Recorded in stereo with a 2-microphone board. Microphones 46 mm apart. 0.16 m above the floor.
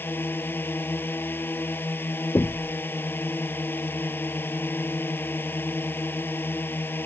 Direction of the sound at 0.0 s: 50° left (ahead or behind).